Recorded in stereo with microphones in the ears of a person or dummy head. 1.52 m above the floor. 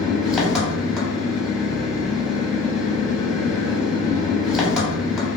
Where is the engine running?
10° right (ahead or behind), 0.9 m.